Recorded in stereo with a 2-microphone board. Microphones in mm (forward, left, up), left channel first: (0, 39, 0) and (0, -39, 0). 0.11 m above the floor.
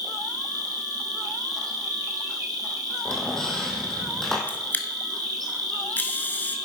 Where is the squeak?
5° left (ahead or behind), 1.8 m.